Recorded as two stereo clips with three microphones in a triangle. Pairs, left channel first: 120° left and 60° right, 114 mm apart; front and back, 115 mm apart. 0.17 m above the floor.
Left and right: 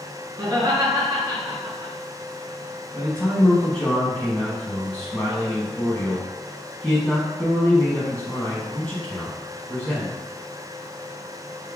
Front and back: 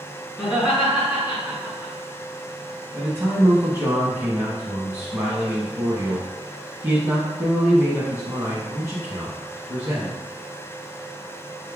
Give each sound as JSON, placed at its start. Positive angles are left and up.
{"t": 0.4, "sound": "laughter", "azimuth_deg": -95, "distance_m": 1.7}
{"t": 2.9, "sound": "a man speaking", "azimuth_deg": 180, "distance_m": 1.0}